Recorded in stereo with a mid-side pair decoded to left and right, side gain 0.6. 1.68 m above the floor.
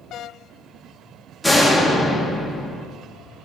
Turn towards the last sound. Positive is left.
turn(degrees=-5)